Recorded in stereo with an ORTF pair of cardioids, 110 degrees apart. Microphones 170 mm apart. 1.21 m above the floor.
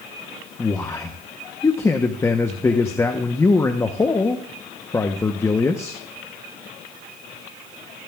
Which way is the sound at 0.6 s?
15° left.